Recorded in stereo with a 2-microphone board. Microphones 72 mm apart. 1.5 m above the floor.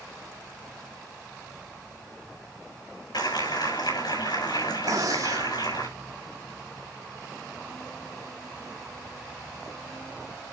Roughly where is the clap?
Left.